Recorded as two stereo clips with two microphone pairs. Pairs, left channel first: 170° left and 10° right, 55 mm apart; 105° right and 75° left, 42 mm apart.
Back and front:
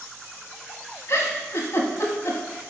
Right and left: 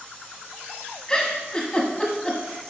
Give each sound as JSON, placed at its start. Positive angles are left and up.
{"t": 1.1, "sound": "a giggle", "azimuth_deg": -175, "distance_m": 1.0}